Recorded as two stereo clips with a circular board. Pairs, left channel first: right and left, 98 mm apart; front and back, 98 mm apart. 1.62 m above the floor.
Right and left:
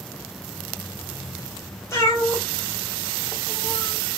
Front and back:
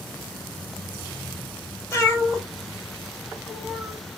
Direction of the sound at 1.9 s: 45° right.